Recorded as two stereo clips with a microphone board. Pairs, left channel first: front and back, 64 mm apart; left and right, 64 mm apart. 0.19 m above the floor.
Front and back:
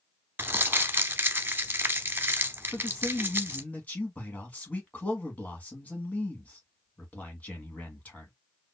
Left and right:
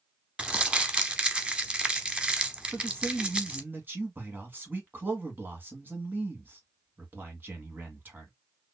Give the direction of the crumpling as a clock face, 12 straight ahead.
5 o'clock.